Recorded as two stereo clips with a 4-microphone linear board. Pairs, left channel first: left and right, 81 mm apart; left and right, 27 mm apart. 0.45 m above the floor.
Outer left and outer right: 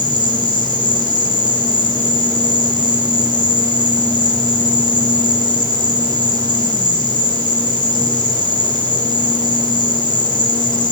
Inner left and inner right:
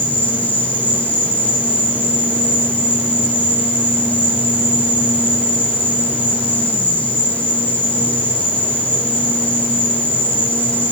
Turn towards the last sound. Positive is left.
turn(degrees=70)  # may be behind; listen again after turning